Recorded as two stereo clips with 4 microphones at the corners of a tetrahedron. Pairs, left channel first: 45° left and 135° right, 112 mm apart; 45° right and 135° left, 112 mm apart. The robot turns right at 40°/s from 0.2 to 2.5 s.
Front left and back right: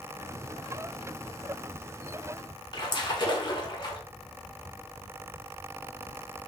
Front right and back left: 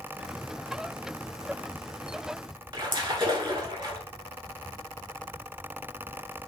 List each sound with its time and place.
2.7 s a splash: 95° left, 0.8 m